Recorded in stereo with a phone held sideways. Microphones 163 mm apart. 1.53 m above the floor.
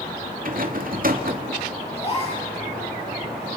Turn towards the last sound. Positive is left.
turn(degrees=40)  # may be behind; listen again after turning